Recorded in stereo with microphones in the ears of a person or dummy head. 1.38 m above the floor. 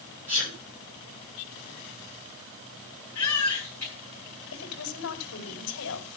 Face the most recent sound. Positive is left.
turn(degrees=90)